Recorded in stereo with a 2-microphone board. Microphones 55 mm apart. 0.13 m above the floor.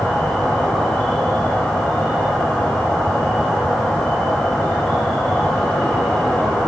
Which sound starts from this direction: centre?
An insect, at 0.0 s.